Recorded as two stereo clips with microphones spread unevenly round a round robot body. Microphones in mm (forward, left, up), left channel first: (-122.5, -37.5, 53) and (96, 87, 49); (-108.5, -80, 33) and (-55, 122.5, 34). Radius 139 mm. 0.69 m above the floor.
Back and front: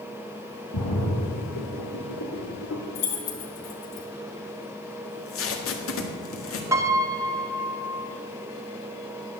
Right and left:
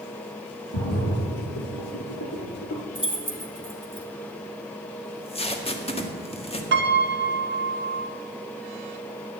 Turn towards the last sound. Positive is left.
turn(degrees=105)